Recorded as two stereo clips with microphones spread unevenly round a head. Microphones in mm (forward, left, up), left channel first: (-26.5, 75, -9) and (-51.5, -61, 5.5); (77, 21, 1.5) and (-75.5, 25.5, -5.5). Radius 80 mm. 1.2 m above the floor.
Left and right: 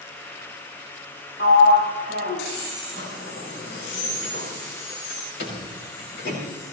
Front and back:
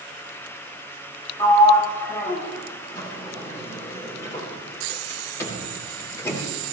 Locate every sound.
1.4 s a sliding door: 70° left, 6 m